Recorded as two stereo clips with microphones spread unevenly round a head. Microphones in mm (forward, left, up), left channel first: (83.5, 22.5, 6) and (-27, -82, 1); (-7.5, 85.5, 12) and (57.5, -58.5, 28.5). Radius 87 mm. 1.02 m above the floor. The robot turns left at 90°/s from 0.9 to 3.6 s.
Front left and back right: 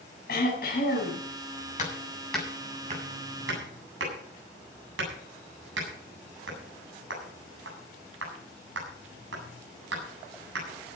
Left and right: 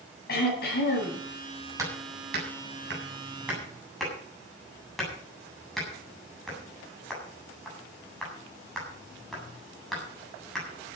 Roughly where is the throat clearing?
Left.